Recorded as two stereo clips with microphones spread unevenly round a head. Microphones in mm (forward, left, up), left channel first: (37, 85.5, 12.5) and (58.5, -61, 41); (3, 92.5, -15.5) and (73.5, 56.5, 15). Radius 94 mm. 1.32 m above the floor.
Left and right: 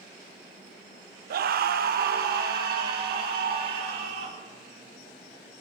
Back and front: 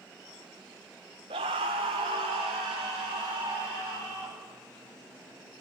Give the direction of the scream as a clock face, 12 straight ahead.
2 o'clock.